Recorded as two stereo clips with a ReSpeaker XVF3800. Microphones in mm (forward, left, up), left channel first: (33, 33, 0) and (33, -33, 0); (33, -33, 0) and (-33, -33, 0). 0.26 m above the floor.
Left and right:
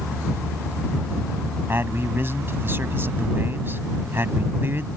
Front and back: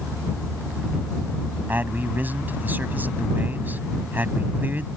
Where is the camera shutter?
No camera shutter in this recording.